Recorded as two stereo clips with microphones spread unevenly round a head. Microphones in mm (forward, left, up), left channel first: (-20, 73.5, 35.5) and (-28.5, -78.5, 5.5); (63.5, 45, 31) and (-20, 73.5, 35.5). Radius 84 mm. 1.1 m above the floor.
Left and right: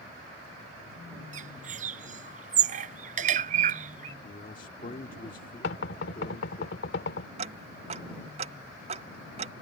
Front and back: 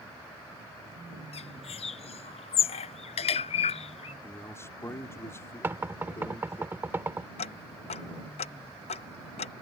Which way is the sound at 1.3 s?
45° right.